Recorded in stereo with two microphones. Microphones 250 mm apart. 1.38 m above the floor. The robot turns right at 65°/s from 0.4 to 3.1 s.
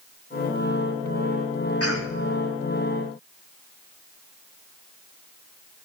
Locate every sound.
1.8 s a cough: 70° left (ahead or behind), 1.9 m; by 2.2 s 45° left (ahead or behind), 1.9 m